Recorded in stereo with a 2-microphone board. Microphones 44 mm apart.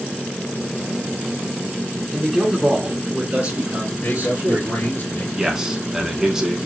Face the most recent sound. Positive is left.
turn(degrees=-15)  # may be behind; listen again after turning